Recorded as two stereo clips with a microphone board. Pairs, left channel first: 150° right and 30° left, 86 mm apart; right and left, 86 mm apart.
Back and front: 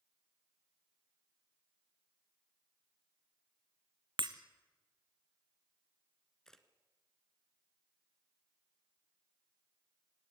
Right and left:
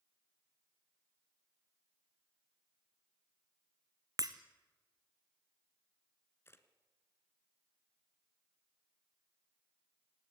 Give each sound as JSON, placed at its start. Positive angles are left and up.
{"t": 4.2, "sound": "breaking glass", "azimuth_deg": 50, "distance_m": 1.2}
{"t": 6.5, "sound": "a camera shutter", "azimuth_deg": -70, "distance_m": 1.6}